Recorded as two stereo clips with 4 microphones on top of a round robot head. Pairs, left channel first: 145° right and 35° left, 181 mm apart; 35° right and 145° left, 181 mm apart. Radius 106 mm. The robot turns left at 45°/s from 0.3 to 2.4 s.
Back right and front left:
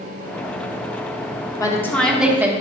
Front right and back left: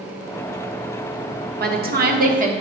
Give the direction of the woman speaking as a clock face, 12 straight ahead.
7 o'clock.